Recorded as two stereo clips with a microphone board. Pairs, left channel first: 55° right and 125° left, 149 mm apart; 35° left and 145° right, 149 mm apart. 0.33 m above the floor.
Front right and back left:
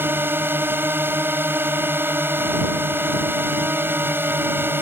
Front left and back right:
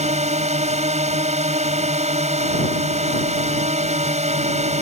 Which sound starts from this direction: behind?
A drone, at 0.0 s.